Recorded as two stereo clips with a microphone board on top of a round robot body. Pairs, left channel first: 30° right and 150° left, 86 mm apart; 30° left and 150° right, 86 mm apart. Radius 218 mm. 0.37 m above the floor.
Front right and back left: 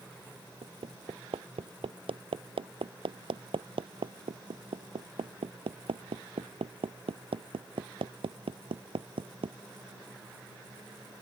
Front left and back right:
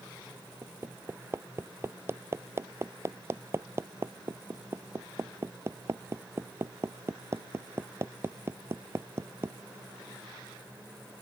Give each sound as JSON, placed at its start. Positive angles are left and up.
{"t": 0.6, "sound": "hammering", "azimuth_deg": 150}